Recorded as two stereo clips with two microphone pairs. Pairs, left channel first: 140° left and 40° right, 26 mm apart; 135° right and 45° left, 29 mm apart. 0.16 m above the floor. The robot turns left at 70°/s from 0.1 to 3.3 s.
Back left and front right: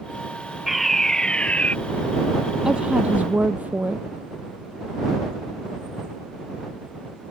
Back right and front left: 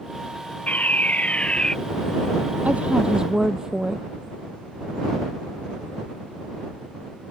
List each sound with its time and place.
0.7 s a fire alarm: 125° right; by 1.8 s 160° left
2.6 s a woman speaking: 20° left; by 4.0 s 25° right